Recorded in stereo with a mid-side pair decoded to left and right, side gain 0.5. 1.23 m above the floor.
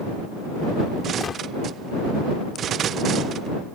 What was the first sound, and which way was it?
A gunshot, 40° left.